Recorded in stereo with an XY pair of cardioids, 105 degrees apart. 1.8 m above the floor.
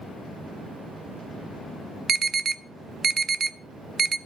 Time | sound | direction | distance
2.1 | an alarm | 45° right | 0.7 m